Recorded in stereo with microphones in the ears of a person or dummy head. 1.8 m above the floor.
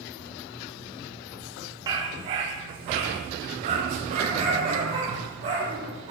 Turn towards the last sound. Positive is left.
turn(degrees=-35)  # may be behind; listen again after turning